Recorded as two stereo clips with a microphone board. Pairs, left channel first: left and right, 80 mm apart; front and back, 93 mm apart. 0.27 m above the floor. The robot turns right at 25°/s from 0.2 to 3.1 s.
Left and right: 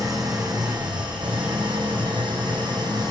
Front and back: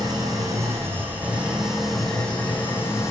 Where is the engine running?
130° right, 4 m; by 3.1 s 60° right, 4 m.